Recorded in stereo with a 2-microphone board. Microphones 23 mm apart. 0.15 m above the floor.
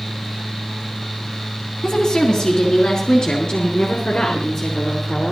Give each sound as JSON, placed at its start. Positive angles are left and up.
{"t": 1.8, "sound": "a woman speaking", "side_deg": 30, "distance_m": 1.7}